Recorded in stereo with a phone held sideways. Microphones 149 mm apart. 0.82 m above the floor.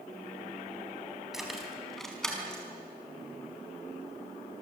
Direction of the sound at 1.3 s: Centre (ahead or behind).